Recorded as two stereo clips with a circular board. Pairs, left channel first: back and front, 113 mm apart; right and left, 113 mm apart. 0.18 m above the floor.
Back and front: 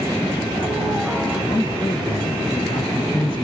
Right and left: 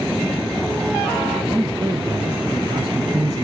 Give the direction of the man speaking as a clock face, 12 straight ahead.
7 o'clock.